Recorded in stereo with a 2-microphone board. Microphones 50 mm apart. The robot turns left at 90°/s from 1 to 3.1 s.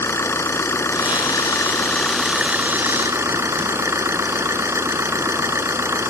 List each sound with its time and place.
0.0 s an engine running: 115° left; by 6.1 s 75° right